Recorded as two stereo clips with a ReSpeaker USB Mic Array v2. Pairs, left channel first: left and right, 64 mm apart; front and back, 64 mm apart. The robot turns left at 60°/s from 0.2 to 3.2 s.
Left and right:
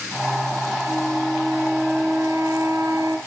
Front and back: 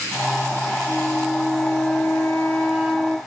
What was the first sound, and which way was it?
A flute, 25° left.